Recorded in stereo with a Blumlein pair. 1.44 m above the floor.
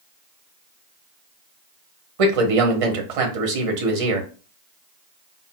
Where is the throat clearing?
I don't hear throat clearing.